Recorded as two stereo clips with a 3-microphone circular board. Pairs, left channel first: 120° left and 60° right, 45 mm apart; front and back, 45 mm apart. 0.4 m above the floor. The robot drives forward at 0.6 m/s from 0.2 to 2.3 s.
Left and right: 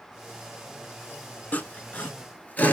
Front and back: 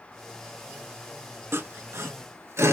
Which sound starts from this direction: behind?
Sawing, at 1.5 s.